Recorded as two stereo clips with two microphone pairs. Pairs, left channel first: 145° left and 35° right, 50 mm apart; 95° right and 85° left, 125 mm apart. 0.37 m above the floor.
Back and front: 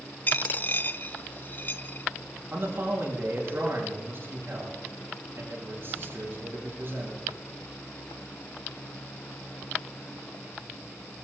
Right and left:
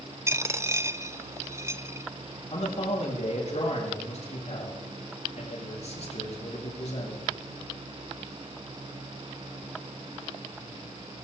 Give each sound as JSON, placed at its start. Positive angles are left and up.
{"t": 0.3, "sound": "a dropped coin", "azimuth_deg": 130, "distance_m": 0.5}
{"t": 2.5, "sound": "a man speaking", "azimuth_deg": -70, "distance_m": 6.0}